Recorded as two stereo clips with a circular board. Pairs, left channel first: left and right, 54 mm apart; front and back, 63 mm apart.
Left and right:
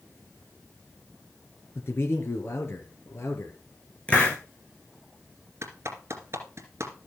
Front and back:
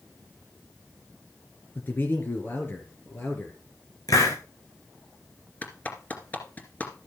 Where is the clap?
60° right, 2.5 m.